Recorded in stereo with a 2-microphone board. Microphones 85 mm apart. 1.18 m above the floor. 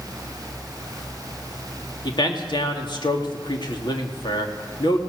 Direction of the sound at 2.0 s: 65° left (ahead or behind).